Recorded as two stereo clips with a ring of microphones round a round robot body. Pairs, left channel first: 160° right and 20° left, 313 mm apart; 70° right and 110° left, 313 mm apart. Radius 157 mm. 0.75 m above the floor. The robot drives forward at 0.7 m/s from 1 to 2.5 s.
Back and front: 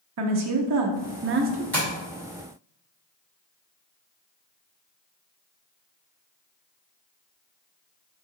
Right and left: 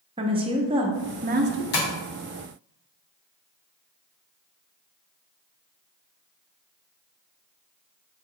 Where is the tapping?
75° right, 1.7 m.